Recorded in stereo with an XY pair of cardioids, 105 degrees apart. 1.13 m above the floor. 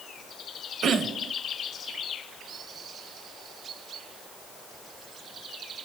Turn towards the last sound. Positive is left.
turn(degrees=-65)